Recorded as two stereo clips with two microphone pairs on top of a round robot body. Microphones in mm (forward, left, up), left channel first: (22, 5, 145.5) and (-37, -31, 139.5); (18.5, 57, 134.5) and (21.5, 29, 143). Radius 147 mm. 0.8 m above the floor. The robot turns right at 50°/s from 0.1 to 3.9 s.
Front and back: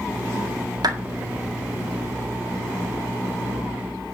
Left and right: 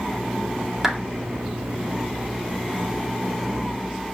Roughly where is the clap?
Behind.